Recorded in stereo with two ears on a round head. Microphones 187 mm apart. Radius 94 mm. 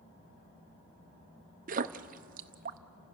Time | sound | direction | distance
1.7 | a splash | 40° right (ahead or behind) | 0.6 m